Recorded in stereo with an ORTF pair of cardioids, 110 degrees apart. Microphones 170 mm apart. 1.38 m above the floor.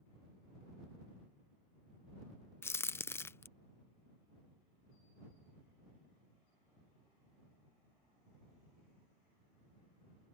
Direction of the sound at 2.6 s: 15° left.